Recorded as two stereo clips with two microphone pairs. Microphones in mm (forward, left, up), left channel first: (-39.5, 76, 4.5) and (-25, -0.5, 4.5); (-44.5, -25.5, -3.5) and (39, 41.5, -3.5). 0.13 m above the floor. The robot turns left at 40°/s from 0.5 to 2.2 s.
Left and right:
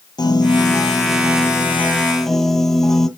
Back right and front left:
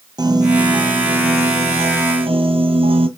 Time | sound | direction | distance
0.2 | a piano | 85° left | 1.4 m